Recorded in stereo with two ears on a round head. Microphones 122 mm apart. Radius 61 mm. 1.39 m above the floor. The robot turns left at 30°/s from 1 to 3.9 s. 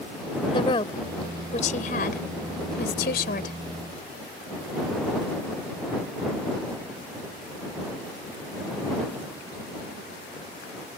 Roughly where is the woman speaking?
Left.